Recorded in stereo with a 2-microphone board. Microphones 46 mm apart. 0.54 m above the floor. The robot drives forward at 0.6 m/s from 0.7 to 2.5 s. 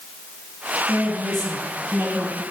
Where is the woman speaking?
50° right (ahead or behind), 4.5 m; by 2.4 s 45° right (ahead or behind), 5 m.